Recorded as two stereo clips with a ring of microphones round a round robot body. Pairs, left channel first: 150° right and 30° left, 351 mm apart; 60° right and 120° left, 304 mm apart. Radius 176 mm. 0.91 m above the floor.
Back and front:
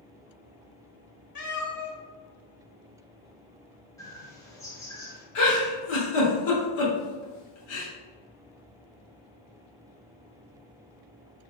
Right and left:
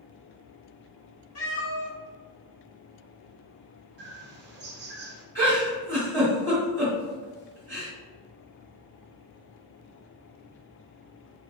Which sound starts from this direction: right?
A cat meowing, at 1.4 s.